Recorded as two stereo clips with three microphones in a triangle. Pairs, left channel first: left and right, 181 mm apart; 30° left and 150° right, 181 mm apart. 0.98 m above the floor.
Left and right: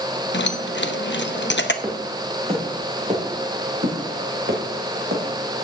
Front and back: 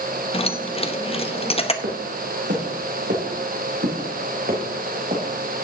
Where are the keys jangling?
85° left, 0.8 m.